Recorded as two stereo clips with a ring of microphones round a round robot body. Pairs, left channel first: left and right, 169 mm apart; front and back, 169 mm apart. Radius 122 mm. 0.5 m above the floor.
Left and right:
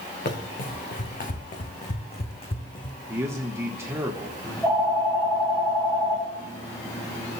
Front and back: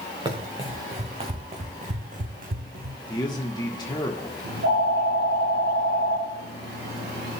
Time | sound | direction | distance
0.2 | running footsteps | 120° left | 3 m
3.1 | a man speaking | 35° right | 1.2 m
4.4 | a phone ringing | 160° left | 3.5 m